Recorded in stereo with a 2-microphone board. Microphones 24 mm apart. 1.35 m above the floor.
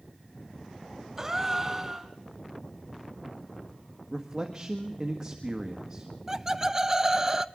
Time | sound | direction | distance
1.2 | a gasp | 15° right (ahead or behind) | 1.4 m
4.1 | a man speaking | 25° right (ahead or behind) | 1.6 m
6.3 | laughter | 20° right (ahead or behind) | 0.7 m